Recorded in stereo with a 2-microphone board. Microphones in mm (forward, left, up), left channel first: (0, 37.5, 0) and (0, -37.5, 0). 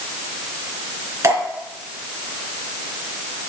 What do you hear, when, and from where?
1.2 s dripping: 40° right (ahead or behind), 3 m